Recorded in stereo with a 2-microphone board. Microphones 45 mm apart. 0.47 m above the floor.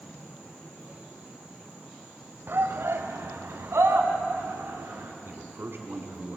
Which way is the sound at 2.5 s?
55° right (ahead or behind).